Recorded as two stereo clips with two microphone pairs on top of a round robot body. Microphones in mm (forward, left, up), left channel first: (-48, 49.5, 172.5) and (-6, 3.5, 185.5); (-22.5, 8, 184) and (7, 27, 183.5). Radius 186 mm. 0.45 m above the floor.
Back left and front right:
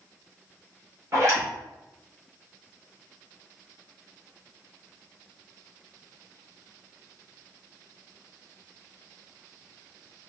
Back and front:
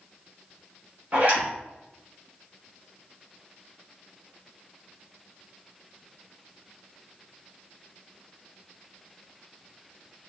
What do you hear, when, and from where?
1.1 s a zipper: 5° right, 2.5 m